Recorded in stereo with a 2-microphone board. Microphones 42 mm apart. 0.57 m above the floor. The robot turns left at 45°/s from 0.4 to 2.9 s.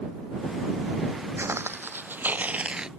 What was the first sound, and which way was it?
Footsteps, 75° right (ahead or behind).